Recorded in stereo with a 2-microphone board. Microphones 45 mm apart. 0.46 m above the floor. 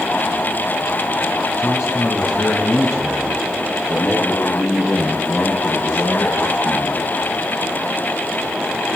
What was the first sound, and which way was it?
A man speaking, 80° left.